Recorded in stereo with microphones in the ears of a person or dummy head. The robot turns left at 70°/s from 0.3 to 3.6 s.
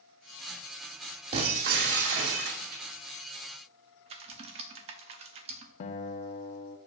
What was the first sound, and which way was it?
Breaking glass, 30° right.